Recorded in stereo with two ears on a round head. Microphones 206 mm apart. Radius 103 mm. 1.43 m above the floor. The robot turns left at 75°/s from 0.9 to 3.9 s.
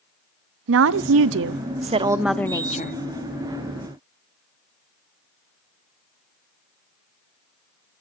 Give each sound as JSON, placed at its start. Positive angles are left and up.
{"t": 0.7, "sound": "a woman speaking", "azimuth_deg": -75, "distance_m": 0.5}